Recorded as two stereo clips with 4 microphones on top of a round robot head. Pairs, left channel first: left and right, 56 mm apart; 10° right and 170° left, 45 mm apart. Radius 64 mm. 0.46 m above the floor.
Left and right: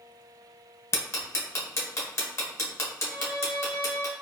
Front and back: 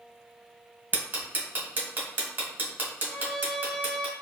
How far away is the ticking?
About 1.3 m.